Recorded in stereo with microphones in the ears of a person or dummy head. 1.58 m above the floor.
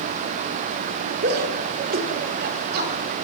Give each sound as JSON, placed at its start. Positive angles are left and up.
{"t": 1.2, "sound": "a shout", "side_deg": -65, "distance_m": 5.5}